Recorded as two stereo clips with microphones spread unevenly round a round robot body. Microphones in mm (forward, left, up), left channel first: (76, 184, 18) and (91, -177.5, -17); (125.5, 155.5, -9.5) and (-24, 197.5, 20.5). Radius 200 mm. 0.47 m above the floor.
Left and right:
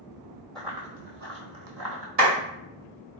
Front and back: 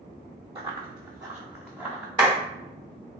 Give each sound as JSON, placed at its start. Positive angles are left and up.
{"t": 0.6, "sound": "running footsteps", "azimuth_deg": 175, "distance_m": 0.6}
{"t": 2.2, "sound": "a clap", "azimuth_deg": -135, "distance_m": 1.9}